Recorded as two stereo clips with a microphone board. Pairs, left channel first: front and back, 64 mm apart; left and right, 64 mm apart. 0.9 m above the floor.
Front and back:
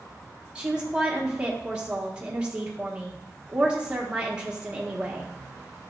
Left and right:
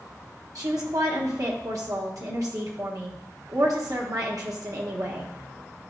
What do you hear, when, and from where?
0.6 s a woman speaking: 105° right, 1.4 m